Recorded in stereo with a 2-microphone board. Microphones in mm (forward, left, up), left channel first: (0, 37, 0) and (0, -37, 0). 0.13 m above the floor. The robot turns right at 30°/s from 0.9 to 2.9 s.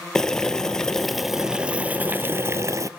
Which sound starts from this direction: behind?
Boiling, at 0.1 s.